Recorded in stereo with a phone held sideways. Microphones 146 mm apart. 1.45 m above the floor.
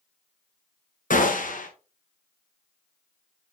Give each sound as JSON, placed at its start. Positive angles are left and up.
{"t": 1.1, "sound": "a gunshot", "side_deg": 65, "distance_m": 1.1}